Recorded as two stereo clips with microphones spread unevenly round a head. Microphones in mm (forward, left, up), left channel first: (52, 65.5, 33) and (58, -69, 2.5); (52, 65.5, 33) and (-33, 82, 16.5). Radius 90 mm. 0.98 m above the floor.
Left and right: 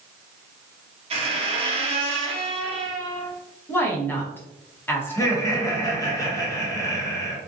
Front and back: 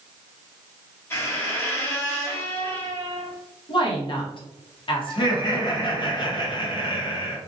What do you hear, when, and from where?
1.1 s a squeak: 50° right, 0.5 m
3.7 s a woman speaking: 10° left, 0.9 m
5.1 s laughter: 25° left, 1.1 m